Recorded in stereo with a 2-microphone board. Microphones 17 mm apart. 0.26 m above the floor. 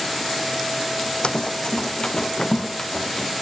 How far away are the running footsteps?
About 0.6 m.